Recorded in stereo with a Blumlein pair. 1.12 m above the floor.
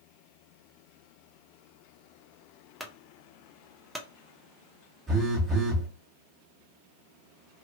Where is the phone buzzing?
10° right, 1.5 m.